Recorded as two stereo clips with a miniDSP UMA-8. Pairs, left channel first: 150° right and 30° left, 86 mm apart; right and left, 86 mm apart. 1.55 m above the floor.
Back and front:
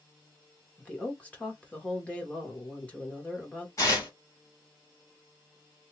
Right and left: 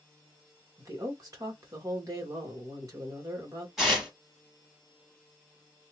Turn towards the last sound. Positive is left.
turn(degrees=175)